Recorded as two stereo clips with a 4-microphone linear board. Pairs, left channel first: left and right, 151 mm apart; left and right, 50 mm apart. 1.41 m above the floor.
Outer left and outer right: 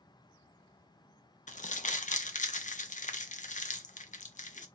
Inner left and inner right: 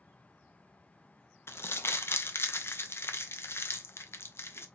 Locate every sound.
1.5 s crumpling: 55° left (ahead or behind), 0.5 m